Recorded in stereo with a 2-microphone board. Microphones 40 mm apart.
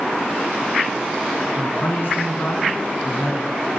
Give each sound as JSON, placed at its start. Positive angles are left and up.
{"t": 1.5, "sound": "a man speaking", "side_deg": 60, "distance_m": 3.0}